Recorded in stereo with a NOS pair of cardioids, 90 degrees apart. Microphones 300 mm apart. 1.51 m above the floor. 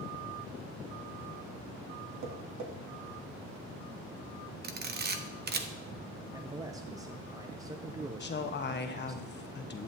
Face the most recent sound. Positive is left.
turn(degrees=35)